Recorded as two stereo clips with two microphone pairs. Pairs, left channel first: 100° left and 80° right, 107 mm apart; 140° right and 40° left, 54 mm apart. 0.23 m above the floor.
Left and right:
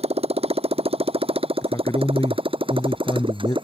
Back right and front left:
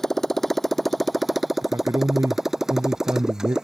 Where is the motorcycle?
55° right; by 3.6 s 40° right.